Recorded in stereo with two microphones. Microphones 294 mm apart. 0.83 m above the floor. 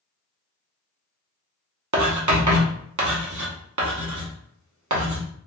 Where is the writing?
75° right (ahead or behind), 0.9 m.